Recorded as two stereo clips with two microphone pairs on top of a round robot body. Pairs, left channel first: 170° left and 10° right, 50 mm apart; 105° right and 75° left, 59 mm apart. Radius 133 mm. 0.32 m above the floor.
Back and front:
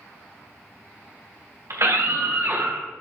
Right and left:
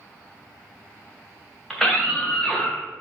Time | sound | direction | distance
1.7 | a scream | 20° right | 3 m